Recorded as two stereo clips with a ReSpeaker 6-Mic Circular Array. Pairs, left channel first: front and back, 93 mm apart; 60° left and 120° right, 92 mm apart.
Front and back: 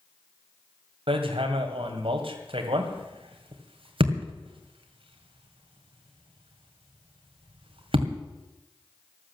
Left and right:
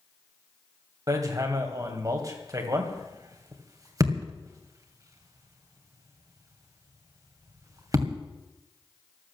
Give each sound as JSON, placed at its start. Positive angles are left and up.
{"t": 1.1, "sound": "hammering", "azimuth_deg": -170, "distance_m": 2.0}